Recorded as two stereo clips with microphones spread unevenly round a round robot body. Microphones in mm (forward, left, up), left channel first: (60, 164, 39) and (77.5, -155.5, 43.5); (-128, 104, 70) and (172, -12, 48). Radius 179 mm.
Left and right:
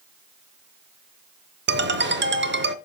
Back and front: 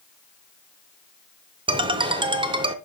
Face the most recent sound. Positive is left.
turn(degrees=-75)